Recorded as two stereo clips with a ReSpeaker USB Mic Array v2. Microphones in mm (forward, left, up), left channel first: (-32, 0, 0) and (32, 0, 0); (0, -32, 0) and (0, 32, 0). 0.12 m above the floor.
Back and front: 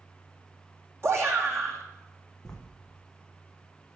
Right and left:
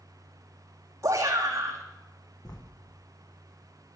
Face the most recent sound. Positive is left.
turn(degrees=-100)